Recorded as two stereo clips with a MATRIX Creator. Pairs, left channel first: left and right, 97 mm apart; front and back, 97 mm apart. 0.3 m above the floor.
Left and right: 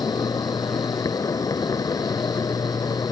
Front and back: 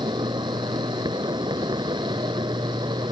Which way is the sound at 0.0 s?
140° left.